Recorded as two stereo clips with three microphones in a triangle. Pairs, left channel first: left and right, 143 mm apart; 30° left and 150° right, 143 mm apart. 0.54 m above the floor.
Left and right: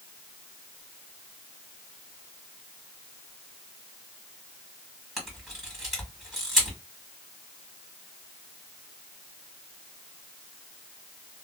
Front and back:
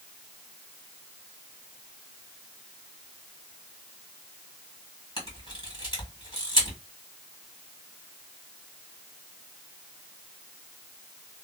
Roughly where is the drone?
No drone in this recording.